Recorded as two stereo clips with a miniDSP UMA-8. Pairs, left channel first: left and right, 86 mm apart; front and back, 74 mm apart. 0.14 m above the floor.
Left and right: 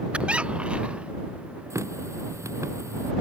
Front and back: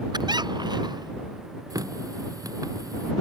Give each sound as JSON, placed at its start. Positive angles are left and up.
{"t": 0.1, "sound": "a squeak", "azimuth_deg": -165}
{"t": 1.7, "sound": "a running tap", "azimuth_deg": -145}